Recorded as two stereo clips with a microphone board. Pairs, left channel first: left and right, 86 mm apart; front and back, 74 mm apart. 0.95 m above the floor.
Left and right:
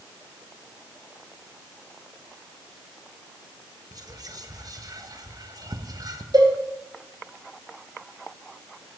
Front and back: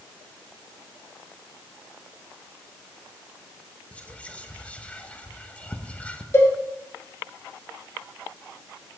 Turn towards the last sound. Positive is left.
turn(degrees=-55)